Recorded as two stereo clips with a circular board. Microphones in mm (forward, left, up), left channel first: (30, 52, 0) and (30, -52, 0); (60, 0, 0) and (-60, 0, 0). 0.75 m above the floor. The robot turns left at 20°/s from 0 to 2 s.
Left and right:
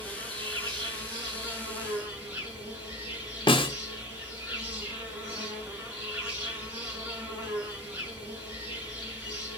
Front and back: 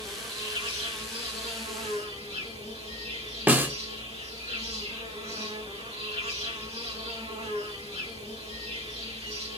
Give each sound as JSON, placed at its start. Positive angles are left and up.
{"t": 0.0, "sound": "an insect", "azimuth_deg": -125, "distance_m": 2.5}
{"t": 3.5, "sound": "a snare drum", "azimuth_deg": 110, "distance_m": 0.5}